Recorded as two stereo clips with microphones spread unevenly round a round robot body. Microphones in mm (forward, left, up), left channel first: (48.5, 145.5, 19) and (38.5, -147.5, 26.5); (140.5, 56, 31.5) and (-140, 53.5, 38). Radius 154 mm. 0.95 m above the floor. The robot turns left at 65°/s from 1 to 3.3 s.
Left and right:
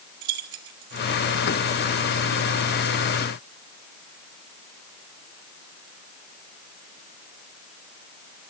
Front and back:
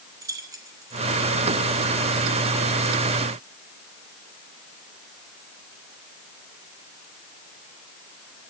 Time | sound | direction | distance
0.2 | keys jangling | 100° right | 1.7 m